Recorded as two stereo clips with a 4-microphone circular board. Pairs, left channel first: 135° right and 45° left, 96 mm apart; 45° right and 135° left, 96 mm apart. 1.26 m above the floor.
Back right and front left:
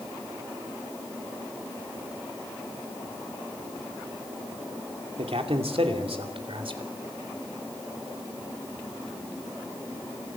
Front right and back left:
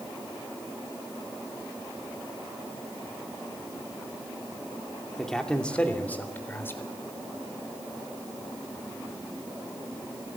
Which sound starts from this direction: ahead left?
A man speaking, at 5.2 s.